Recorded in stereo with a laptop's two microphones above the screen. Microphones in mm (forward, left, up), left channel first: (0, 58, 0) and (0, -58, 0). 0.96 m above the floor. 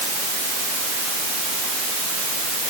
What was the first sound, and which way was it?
Only background noise.